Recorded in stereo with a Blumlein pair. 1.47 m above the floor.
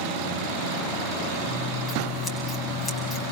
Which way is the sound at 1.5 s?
15° left.